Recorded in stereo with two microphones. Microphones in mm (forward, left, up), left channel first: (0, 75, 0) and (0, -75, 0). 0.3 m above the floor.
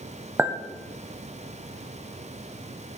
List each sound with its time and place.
0.4 s a clink: 15° right (ahead or behind), 0.9 m